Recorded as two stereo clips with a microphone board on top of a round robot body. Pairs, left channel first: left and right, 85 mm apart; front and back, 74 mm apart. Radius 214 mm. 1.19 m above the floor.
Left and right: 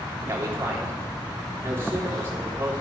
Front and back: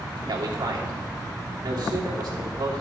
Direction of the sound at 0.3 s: 155° right.